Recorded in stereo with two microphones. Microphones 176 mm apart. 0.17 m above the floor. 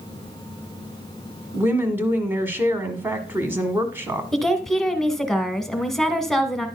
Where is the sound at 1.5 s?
10° right (ahead or behind), 1.3 m.